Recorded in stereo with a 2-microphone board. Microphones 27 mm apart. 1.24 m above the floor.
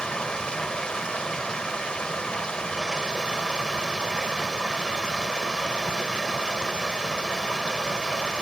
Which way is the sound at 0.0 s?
35° left (ahead or behind).